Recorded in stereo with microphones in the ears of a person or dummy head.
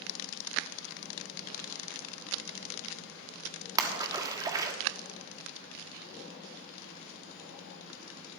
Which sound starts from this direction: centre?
A splash, at 3.8 s.